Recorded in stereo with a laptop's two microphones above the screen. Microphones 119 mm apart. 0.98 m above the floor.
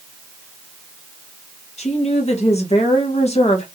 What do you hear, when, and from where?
1.8 s a woman speaking: 65° left (ahead or behind), 0.8 m